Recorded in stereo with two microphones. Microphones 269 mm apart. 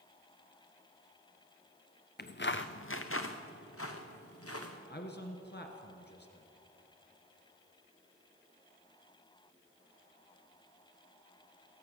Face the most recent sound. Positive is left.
turn(degrees=40)  # may be behind; listen again after turning